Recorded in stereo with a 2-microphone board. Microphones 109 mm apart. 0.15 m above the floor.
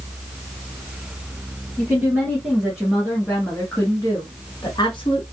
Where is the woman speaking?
20° right (ahead or behind), 2.0 m; by 5.2 s 50° left (ahead or behind), 1.6 m.